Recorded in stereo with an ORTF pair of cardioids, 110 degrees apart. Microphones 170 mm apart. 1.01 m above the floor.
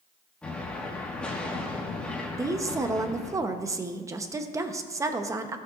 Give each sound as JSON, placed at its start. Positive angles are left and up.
{"t": 0.4, "sound": "an explosion", "azimuth_deg": 5, "distance_m": 1.5}
{"t": 2.4, "sound": "a woman speaking", "azimuth_deg": -20, "distance_m": 0.8}